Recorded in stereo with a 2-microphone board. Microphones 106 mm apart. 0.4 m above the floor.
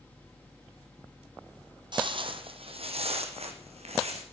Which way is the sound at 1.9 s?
50° right (ahead or behind).